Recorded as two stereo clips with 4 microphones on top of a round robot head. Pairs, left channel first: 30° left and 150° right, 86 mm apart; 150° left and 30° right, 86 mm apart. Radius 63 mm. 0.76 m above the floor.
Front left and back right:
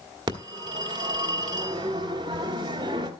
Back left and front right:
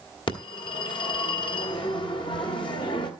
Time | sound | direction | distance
0.3 | a phone ringing | 175° left | 1.8 m